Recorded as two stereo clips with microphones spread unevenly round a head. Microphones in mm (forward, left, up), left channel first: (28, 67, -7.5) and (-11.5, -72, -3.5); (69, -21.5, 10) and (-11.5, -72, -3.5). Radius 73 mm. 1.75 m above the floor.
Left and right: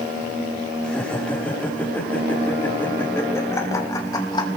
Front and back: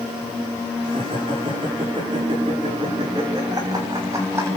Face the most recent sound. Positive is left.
turn(degrees=140)